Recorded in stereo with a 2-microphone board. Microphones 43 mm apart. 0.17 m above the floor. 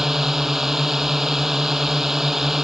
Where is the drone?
10° right (ahead or behind).